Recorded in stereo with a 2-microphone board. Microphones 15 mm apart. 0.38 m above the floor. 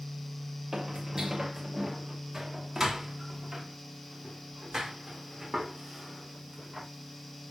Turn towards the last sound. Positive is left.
turn(degrees=-30)  # may be behind; listen again after turning